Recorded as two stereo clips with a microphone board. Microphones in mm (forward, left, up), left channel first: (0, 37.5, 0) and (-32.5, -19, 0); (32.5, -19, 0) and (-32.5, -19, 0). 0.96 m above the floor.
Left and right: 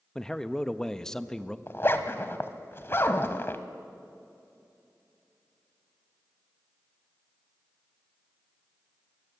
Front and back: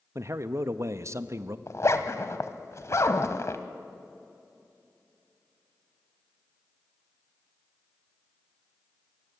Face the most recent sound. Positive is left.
turn(degrees=20)